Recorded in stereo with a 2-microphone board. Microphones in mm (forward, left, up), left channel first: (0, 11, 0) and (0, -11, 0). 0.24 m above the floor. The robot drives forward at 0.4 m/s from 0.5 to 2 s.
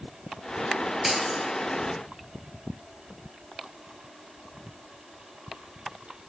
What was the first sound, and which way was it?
Breaking glass, 10° right (ahead or behind).